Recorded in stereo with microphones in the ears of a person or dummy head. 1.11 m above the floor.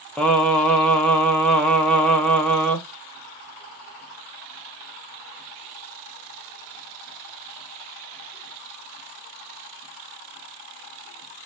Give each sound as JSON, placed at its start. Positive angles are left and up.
{"t": 0.2, "sound": "singing", "side_deg": 10, "distance_m": 0.7}